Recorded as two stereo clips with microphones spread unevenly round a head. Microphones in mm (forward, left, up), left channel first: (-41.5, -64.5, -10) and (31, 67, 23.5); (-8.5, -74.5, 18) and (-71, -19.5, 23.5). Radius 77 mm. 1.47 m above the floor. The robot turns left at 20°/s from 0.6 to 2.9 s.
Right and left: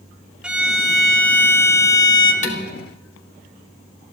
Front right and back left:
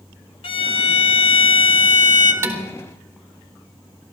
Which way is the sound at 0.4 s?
25° right.